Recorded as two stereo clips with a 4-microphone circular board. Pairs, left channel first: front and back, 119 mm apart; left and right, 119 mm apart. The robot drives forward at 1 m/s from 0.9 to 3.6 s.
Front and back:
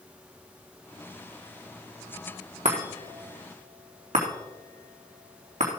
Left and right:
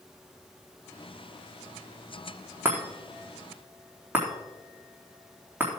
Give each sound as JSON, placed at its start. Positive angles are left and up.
{"t": 2.6, "sound": "a chime", "azimuth_deg": -160, "distance_m": 3.0}